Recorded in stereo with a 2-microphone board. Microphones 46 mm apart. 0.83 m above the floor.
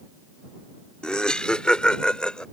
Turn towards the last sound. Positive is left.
turn(degrees=20)  # may be behind; listen again after turning